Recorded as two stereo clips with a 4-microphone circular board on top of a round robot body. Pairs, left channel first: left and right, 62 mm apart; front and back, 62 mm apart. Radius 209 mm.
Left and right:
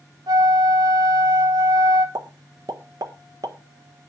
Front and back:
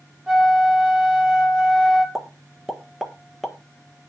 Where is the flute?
100° right, 1.9 m.